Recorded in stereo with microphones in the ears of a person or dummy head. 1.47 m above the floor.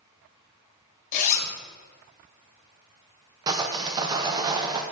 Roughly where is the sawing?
Right.